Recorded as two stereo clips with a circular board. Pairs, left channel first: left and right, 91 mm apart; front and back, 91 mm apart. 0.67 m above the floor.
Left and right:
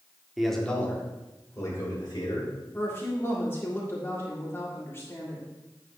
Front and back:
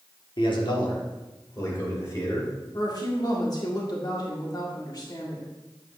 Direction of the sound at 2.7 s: 30° left.